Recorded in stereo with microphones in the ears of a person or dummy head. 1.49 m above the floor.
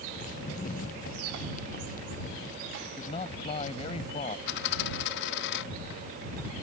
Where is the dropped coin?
60° left (ahead or behind).